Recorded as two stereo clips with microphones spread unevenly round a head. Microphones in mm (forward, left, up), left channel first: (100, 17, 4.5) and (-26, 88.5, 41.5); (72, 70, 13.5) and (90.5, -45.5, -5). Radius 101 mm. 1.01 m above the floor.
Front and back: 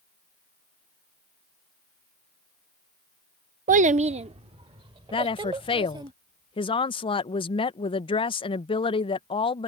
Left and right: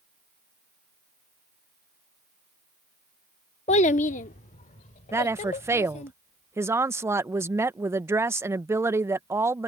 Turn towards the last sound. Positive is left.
turn(degrees=-30)